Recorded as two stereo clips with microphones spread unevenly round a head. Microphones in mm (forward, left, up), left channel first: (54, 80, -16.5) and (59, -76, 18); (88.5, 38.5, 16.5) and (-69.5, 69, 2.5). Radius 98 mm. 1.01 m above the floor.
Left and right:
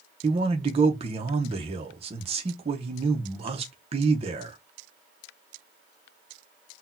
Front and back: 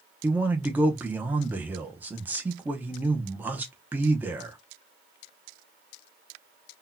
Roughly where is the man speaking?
Behind right.